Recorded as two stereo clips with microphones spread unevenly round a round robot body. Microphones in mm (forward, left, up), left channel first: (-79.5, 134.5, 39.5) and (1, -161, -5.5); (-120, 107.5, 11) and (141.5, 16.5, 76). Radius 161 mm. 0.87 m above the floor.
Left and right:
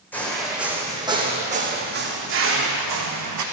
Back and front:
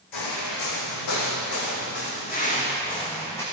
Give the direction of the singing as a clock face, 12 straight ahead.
No singing in this recording.